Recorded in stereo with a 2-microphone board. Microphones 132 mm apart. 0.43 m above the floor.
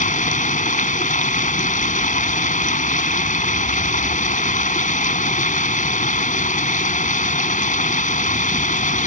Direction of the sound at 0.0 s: 75° left (ahead or behind).